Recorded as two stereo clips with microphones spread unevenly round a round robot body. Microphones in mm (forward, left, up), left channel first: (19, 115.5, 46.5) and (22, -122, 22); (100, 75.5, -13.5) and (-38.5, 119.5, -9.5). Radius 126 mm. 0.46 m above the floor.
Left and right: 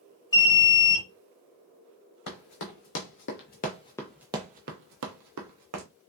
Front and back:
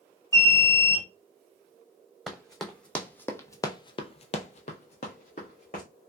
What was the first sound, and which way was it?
An alarm, 20° left.